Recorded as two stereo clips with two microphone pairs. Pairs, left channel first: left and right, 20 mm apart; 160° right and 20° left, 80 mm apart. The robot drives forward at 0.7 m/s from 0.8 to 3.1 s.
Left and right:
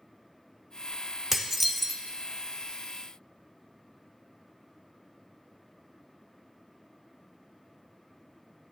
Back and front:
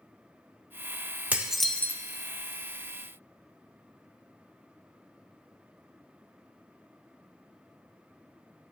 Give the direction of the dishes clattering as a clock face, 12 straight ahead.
12 o'clock.